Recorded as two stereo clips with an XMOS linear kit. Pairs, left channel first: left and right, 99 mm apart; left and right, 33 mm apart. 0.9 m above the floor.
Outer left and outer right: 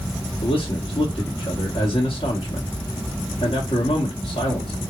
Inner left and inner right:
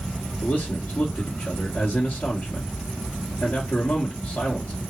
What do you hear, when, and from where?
0.4 s a man speaking: 70° left (ahead or behind), 1.6 m